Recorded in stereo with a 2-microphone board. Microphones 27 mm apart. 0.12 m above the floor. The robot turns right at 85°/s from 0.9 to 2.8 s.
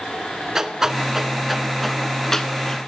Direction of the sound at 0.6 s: 15° right (ahead or behind).